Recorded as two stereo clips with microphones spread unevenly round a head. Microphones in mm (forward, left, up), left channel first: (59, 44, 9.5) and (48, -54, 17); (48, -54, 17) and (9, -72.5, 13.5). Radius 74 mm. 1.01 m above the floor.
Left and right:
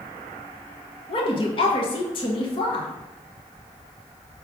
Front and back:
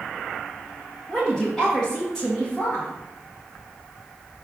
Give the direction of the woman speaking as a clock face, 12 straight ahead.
8 o'clock.